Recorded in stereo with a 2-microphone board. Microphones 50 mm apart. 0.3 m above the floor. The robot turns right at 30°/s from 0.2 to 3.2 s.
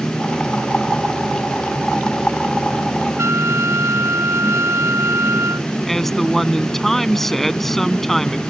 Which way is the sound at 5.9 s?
5° left (ahead or behind).